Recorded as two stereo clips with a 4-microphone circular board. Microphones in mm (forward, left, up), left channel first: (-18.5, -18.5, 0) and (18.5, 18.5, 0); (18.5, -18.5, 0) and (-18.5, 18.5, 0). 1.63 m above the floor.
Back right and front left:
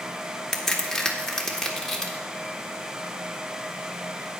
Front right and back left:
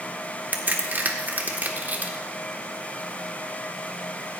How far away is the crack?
About 1.4 m.